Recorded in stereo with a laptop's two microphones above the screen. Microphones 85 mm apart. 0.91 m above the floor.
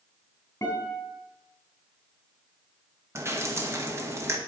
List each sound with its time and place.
0.6 s a guitar: 45° left (ahead or behind), 3 m
3.1 s dripping: 30° right (ahead or behind), 0.9 m